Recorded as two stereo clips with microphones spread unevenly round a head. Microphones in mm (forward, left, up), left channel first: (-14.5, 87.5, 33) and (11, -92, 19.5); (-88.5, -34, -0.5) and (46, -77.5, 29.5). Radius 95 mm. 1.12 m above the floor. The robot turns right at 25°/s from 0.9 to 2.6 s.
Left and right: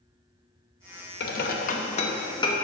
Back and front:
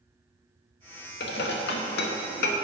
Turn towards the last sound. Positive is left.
turn(degrees=170)